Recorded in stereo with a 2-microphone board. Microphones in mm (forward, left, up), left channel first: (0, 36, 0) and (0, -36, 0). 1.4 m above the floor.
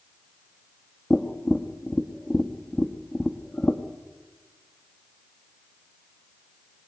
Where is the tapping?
20° left (ahead or behind), 1.3 m.